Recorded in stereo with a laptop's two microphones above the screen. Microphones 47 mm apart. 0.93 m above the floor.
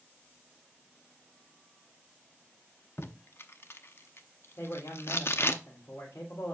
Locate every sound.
3.0 s tape being pulled: 55° left (ahead or behind), 0.7 m
4.6 s a man speaking: 80° left, 3 m